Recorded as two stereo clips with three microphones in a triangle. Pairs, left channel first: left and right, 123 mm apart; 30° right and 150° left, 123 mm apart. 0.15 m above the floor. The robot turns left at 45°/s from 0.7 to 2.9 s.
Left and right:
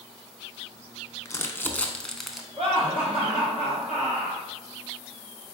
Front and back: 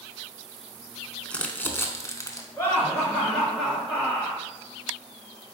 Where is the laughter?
95° right, 1.9 m; by 4.4 s 110° right, 1.9 m.